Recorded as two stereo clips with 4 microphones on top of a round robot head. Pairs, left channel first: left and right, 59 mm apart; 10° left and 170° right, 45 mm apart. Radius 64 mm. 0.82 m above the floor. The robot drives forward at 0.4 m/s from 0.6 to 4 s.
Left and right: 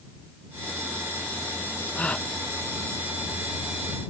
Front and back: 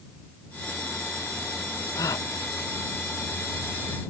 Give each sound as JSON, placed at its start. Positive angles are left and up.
{"t": 1.9, "sound": "a gasp", "azimuth_deg": 15}